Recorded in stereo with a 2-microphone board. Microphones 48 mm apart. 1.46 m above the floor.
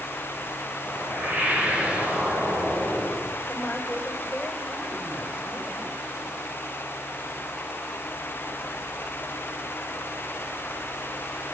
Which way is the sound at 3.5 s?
35° left (ahead or behind).